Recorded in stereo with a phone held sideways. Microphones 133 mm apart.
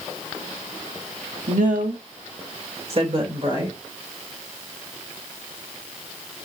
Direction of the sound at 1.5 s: 70° right (ahead or behind).